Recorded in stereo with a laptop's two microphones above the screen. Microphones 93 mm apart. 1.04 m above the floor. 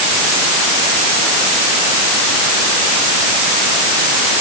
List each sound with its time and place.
Only background noise.